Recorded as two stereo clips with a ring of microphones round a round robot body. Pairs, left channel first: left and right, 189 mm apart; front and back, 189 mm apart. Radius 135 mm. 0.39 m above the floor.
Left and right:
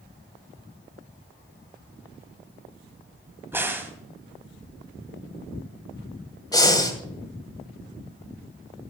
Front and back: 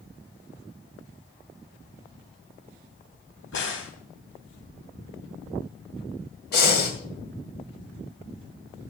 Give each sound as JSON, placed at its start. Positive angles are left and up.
{"t": 3.5, "sound": "a crack", "azimuth_deg": -10, "distance_m": 2.5}
{"t": 6.5, "sound": "breathing", "azimuth_deg": 20, "distance_m": 2.5}